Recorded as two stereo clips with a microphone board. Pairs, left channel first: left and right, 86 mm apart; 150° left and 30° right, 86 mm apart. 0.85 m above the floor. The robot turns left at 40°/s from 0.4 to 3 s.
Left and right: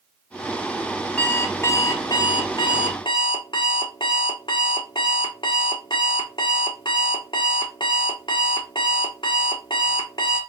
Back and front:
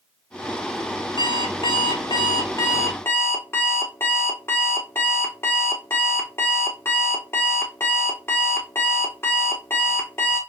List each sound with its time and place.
1.2 s an alarm clock: 165° left, 0.8 m; by 10.4 s 90° left, 0.8 m